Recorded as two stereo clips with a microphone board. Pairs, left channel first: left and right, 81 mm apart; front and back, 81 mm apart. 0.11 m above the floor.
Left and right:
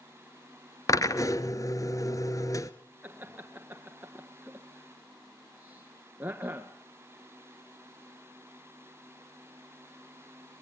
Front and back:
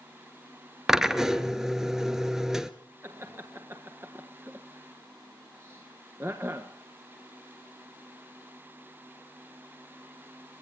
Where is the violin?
I don't hear a violin.